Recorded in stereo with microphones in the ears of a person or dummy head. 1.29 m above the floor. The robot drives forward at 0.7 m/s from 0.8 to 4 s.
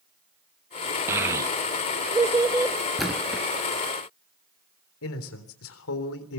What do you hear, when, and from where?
1.1 s a child speaking: 10° right (ahead or behind), 0.7 m
3.0 s a splash: centre (ahead or behind), 4 m
5.0 s a man speaking: 75° left (ahead or behind), 3.5 m